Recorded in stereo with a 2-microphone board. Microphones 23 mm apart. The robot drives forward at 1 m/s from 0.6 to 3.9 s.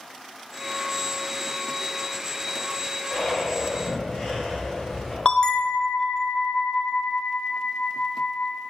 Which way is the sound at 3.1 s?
15° left (ahead or behind).